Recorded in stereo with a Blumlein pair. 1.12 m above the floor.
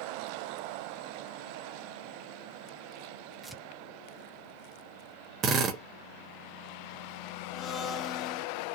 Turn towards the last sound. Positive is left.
turn(degrees=25)